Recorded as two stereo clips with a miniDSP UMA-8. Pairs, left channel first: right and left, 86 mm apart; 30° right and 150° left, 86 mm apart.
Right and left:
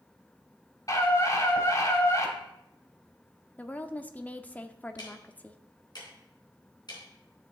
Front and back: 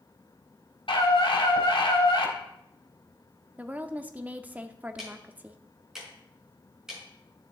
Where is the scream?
45° right, 3.5 m.